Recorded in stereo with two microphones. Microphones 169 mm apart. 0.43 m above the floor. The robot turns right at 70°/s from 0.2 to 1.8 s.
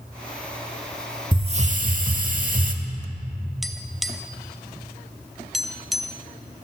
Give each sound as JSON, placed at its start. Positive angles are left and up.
{"t": 1.3, "sound": "a hiss", "azimuth_deg": -150, "distance_m": 0.9}
{"t": 3.6, "sound": "tapping", "side_deg": 0, "distance_m": 0.5}